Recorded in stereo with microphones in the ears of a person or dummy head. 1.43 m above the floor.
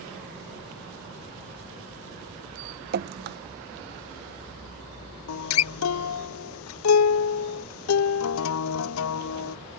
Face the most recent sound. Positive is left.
turn(degrees=75)  # may be behind; listen again after turning